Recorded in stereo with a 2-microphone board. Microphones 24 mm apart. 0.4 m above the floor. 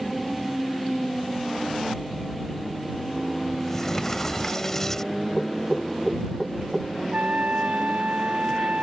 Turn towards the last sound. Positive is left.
turn(degrees=-80)